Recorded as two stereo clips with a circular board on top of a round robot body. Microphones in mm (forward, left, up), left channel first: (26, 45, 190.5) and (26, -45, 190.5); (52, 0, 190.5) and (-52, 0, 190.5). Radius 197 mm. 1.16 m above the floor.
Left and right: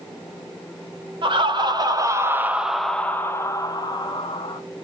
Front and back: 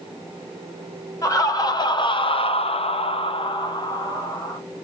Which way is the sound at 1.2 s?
60° right.